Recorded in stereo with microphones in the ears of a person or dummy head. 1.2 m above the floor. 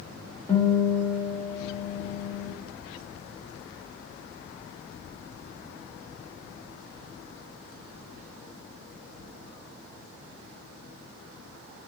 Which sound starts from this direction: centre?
A guitar, at 0.5 s.